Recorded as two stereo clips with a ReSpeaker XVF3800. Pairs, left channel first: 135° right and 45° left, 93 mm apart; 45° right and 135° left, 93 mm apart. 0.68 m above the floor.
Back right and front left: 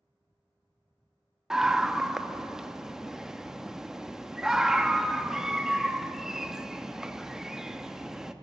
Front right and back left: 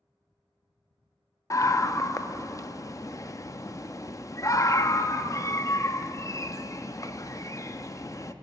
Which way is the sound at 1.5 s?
35° right.